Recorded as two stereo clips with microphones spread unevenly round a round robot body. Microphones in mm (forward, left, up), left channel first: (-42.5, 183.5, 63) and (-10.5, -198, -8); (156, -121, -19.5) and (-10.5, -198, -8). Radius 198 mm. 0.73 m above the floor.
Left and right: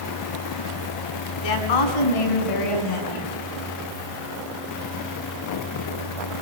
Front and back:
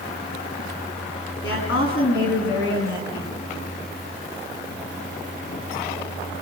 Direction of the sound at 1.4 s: 65° left.